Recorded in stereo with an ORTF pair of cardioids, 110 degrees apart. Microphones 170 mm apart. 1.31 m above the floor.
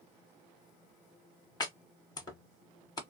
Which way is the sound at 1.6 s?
20° left.